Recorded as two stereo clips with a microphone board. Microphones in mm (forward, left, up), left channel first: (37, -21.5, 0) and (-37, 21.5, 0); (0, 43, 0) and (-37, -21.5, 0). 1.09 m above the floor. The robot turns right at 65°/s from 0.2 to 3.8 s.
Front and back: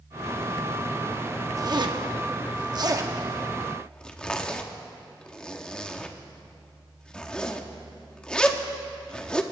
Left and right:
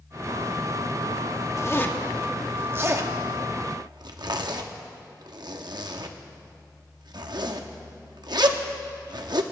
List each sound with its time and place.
1.6 s a zipper: 105° left, 1.0 m; by 9.4 s 110° right, 1.0 m